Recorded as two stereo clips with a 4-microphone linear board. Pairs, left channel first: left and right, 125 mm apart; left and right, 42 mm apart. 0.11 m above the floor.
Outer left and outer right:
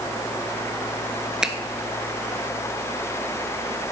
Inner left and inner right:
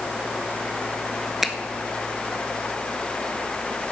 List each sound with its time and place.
1.4 s a finger snap: 5° right (ahead or behind), 1.0 m